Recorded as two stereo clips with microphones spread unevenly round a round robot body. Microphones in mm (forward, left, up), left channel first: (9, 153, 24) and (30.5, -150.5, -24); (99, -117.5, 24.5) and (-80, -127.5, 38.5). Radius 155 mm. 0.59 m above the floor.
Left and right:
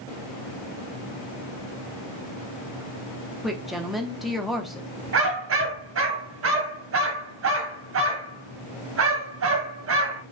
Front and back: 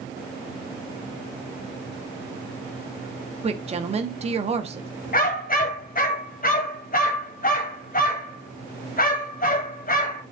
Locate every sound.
3.4 s a woman speaking: 160° right, 0.8 m
5.1 s a dog barking: 40° right, 1.6 m